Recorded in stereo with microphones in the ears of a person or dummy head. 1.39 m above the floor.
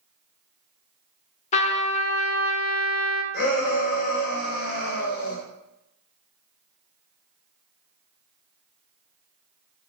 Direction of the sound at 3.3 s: 55° left (ahead or behind).